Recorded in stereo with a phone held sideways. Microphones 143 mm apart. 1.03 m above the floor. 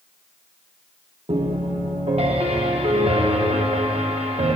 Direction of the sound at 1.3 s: 45° right (ahead or behind).